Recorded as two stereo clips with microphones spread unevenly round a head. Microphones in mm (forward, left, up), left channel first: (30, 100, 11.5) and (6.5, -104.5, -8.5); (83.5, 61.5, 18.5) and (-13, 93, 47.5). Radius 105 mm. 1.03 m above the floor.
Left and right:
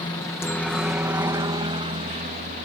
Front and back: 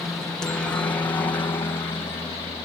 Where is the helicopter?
30° left; by 2.7 s 60° right.